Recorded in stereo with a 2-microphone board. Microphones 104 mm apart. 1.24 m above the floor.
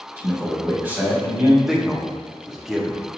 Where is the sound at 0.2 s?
15° right (ahead or behind), 1.3 m.